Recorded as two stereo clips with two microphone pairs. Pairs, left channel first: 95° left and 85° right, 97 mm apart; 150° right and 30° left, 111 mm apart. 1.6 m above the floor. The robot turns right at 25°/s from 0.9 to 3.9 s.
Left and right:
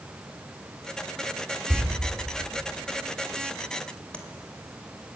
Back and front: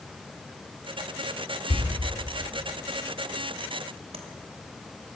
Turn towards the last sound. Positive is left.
turn(degrees=20)